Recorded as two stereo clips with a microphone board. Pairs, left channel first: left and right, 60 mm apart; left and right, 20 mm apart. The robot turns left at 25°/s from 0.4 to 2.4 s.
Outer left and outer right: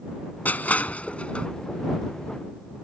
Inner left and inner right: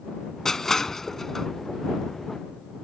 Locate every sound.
0.5 s crushing: 30° left (ahead or behind); by 1.5 s 20° left (ahead or behind)